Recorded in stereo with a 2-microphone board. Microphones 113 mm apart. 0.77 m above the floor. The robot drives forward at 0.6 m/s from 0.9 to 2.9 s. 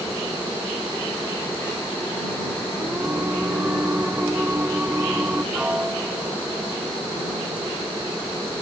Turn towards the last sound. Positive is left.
turn(degrees=-10)  # may be behind; listen again after turning